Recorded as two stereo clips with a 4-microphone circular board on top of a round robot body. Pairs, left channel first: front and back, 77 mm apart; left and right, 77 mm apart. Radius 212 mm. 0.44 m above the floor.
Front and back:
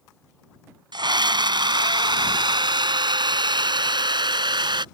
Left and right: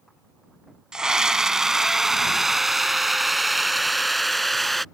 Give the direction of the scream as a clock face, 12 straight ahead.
6 o'clock.